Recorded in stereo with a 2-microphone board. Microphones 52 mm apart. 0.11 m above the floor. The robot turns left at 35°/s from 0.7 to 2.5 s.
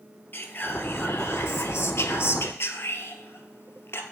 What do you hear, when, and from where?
0.3 s whispering: 130° left, 1.9 m; by 4.0 s 65° left, 1.9 m